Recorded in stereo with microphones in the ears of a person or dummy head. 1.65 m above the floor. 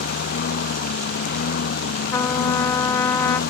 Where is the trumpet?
15° left (ahead or behind).